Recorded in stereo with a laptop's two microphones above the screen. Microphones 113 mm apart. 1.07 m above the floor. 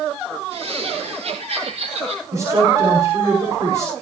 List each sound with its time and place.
0.5 s laughter: 60° right (ahead or behind), 4 m; by 2.2 s 65° right (ahead or behind), 6 m
2.3 s a woman speaking: 25° right (ahead or behind), 5.5 m